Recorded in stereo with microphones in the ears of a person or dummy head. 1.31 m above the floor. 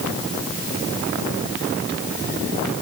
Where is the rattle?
I don't hear a rattle.